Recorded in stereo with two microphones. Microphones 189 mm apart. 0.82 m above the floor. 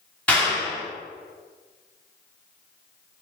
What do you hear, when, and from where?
0.3 s a clap: 5° left (ahead or behind), 1.9 m